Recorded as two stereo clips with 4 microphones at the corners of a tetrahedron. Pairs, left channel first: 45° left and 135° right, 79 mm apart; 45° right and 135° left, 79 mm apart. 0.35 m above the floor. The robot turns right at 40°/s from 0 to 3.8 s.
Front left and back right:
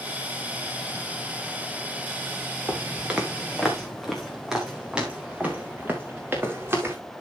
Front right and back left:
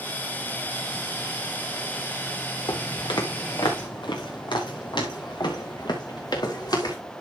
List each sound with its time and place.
2.7 s footsteps: 70° right, 2.5 m; by 7.0 s 75° right, 3.5 m